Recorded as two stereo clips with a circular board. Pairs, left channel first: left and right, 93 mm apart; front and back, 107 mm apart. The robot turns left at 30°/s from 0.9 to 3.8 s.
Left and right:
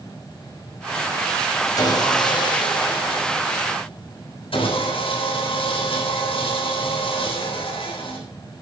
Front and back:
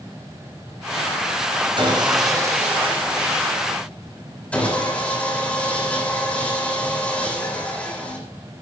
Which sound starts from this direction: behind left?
Sawing, at 1.8 s.